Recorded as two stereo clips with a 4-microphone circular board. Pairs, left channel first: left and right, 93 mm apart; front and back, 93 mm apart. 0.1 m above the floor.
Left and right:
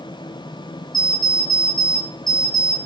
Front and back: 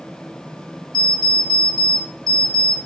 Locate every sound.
0.9 s an alarm clock: 5° left, 1.2 m